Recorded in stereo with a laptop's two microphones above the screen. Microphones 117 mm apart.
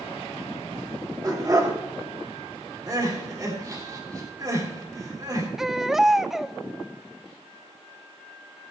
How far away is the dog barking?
About 2.0 m.